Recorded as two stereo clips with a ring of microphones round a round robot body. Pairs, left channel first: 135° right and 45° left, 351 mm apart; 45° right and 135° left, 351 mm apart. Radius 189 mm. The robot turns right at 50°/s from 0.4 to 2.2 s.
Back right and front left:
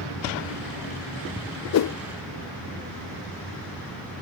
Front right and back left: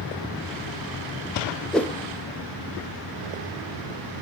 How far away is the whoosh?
About 0.5 m.